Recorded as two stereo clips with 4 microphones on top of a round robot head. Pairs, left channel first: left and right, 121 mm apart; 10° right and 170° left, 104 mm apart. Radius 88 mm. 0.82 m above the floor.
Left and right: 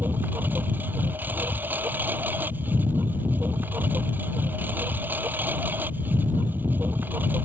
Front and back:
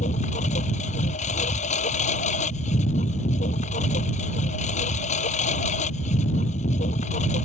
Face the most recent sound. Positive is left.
turn(degrees=-10)